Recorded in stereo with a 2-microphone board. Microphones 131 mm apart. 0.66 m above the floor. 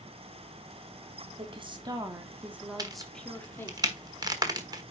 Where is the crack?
30° right (ahead or behind), 1.2 m.